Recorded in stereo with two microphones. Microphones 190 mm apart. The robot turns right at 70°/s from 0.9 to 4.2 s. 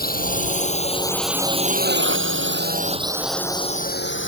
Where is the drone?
50° left (ahead or behind); by 4.3 s 70° left (ahead or behind).